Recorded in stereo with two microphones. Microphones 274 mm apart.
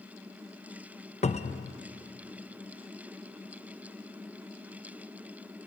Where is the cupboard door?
25° left (ahead or behind), 0.7 m.